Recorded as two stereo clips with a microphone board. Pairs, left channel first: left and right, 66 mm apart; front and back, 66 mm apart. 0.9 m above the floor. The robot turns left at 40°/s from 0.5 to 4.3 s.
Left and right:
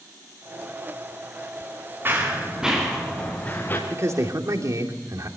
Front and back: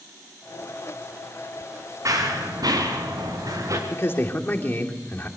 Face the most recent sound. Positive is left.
turn(degrees=-60)